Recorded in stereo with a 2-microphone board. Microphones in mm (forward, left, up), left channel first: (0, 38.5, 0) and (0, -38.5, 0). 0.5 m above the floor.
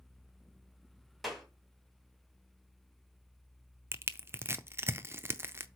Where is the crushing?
30° right (ahead or behind), 0.5 m.